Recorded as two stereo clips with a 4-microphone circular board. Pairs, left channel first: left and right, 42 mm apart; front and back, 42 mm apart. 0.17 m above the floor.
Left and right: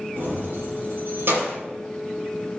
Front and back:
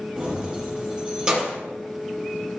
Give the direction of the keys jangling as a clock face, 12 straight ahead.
4 o'clock.